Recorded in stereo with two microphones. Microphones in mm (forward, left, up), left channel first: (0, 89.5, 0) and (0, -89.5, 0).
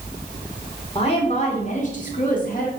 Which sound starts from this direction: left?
A woman speaking, at 0.9 s.